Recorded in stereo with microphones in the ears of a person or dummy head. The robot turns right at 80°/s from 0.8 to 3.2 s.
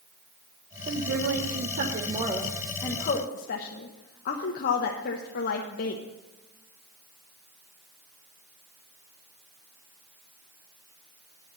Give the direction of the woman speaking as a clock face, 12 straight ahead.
4 o'clock.